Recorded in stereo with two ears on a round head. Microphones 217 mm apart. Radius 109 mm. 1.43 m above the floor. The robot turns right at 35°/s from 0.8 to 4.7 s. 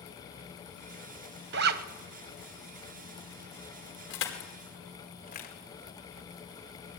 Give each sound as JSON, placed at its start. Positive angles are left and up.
{"t": 1.5, "sound": "a zipper", "side_deg": -45, "distance_m": 1.0}
{"t": 4.1, "sound": "crushing", "side_deg": 60, "distance_m": 4.5}